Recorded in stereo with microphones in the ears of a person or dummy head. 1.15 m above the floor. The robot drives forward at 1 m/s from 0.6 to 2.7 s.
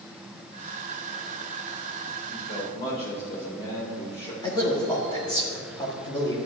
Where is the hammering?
I don't hear hammering.